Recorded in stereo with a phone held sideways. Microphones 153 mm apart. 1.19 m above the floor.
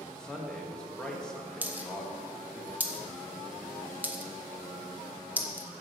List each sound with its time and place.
0.1 s a man speaking: 5° left (ahead or behind), 1.6 m
1.6 s a dropped coin: 10° right (ahead or behind), 0.8 m